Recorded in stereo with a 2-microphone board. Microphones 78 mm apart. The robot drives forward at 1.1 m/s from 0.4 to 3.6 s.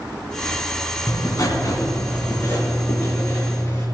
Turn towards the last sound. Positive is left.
turn(degrees=25)  # may be behind; listen again after turning